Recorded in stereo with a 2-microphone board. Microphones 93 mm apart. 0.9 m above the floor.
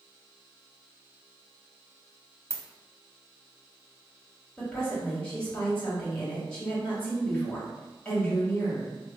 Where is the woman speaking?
10° left (ahead or behind), 1.5 m.